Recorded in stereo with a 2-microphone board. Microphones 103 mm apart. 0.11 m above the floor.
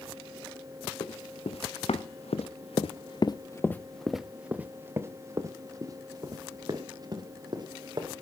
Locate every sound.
1.0 s running footsteps: 80° left, 2.0 m; by 8.1 s 45° right (ahead or behind), 3.5 m